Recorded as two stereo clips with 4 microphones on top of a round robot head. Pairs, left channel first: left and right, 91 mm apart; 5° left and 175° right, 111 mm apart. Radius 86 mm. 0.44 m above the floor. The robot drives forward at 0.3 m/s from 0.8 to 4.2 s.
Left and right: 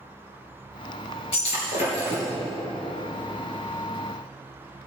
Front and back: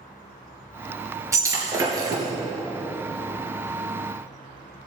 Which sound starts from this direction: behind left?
Breaking glass, at 1.3 s.